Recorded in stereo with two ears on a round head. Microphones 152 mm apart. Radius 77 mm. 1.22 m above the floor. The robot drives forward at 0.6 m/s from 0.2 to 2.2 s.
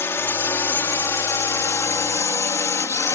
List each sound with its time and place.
0.0 s a drone: 15° left (ahead or behind)